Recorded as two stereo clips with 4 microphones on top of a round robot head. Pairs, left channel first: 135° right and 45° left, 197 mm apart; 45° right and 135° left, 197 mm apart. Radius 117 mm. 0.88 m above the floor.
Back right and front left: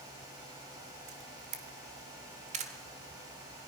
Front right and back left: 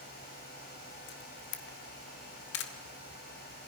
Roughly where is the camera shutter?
Ahead.